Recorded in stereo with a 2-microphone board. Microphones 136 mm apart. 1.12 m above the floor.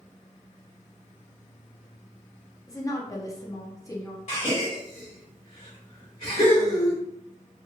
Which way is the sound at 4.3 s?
60° left (ahead or behind).